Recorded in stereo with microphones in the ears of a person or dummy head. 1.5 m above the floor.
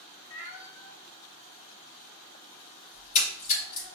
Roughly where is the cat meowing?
Left.